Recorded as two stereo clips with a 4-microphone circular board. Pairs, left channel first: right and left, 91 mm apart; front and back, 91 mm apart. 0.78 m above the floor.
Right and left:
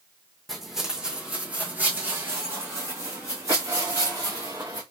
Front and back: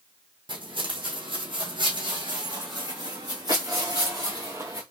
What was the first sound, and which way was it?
Footsteps, straight behind.